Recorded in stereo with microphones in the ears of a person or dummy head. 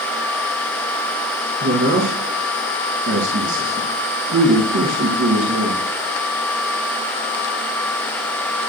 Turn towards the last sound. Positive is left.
turn(degrees=-80)